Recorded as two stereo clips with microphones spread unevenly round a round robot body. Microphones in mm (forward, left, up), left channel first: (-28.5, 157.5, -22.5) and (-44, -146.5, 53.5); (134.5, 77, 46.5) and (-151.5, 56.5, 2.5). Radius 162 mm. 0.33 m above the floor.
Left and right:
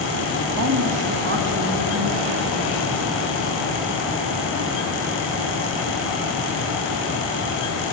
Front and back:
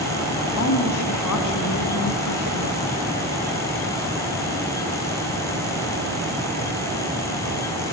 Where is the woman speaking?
45° right, 3 m; by 2.8 s 25° right, 4.5 m.